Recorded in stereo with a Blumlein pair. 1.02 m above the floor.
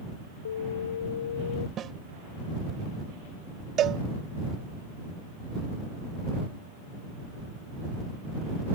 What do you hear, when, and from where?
0.5 s an alarm: 65° left
1.8 s a snare drum: 25° right
3.8 s a cowbell: 30° right